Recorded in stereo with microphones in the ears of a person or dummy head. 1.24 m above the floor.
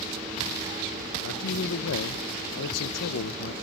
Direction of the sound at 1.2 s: 70° left (ahead or behind).